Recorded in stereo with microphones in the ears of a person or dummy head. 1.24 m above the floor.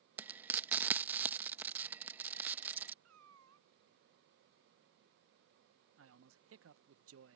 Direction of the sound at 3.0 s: 80° right.